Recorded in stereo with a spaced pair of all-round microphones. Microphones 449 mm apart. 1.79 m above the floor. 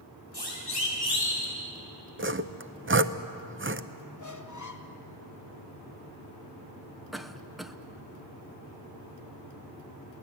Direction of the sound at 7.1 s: Centre (ahead or behind).